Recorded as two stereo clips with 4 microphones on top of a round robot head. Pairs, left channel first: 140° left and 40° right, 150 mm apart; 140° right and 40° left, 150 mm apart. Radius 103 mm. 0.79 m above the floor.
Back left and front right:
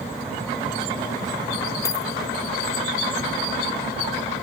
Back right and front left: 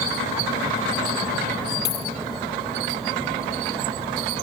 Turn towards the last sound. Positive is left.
turn(degrees=-150)